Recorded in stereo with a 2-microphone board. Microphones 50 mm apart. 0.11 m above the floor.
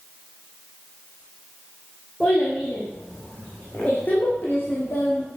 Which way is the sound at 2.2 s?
25° left (ahead or behind).